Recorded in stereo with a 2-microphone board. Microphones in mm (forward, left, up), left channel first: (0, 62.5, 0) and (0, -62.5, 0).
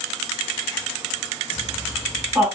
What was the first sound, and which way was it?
Laughter, 10° right (ahead or behind).